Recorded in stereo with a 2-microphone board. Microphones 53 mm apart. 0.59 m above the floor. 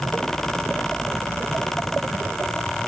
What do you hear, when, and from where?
Only background noise.